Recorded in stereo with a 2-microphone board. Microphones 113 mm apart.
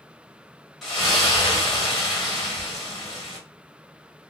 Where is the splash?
Centre (ahead or behind), 1.1 m.